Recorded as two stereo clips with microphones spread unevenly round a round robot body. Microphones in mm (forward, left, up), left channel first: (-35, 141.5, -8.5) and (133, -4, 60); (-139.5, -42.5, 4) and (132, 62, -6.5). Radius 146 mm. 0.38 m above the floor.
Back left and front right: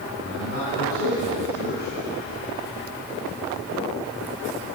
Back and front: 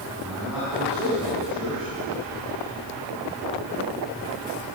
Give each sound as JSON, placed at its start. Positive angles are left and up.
{"t": 0.2, "sound": "a man speaking", "azimuth_deg": 110, "distance_m": 3.5}